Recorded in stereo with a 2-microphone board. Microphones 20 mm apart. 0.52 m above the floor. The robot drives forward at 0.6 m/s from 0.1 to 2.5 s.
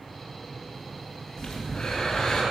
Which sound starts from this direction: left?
Breathing, at 1.4 s.